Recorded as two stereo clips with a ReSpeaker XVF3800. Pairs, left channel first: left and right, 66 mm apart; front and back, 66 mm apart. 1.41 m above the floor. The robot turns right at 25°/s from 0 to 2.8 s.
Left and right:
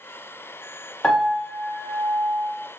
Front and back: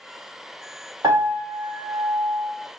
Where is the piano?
175° left, 0.9 m; by 2.5 s 150° right, 0.9 m.